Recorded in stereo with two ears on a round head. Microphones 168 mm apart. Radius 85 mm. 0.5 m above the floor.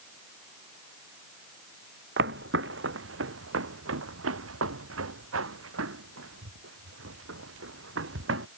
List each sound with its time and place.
2.2 s footsteps: 65° right (ahead or behind); by 8.5 s 70° right (ahead or behind)